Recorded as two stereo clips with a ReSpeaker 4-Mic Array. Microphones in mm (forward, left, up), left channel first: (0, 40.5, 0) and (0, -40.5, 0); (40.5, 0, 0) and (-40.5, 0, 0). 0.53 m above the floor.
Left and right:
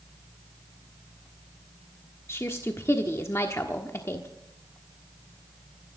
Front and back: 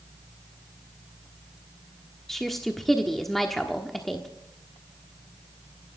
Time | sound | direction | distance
2.3 | a woman speaking | 85° left | 1.2 m